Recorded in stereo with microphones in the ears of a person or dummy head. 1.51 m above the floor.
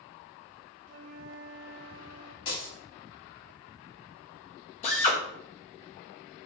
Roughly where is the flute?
Right.